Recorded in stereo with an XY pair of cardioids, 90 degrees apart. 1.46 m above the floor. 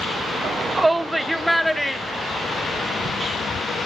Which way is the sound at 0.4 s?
60° right.